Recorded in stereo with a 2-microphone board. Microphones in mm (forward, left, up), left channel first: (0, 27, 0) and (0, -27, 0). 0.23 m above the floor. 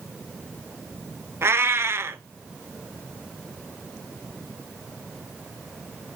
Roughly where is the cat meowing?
Right.